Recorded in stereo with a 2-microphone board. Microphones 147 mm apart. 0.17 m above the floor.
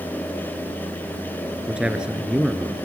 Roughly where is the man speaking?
Centre.